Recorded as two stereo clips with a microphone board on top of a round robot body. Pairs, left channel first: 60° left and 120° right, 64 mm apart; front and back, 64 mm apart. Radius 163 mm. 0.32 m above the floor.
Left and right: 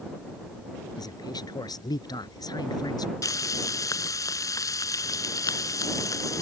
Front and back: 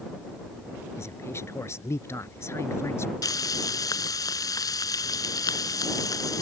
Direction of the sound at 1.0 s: 50° left.